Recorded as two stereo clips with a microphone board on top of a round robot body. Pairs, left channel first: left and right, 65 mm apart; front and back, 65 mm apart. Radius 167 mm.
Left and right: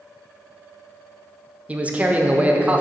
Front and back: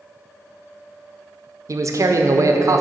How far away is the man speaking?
About 1.0 m.